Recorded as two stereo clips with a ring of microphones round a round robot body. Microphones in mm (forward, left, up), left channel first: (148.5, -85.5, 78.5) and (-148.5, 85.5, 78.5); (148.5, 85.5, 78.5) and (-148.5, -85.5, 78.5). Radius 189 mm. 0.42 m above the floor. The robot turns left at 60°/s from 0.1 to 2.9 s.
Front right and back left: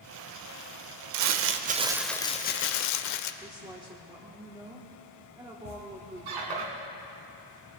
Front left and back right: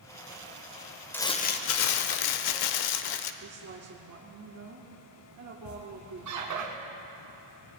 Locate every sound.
1.1 s crumpling: 115° left, 0.7 m; by 3.3 s 10° left, 0.7 m
3.4 s a woman speaking: 135° right, 1.4 m
5.7 s a squeak: 170° left, 1.8 m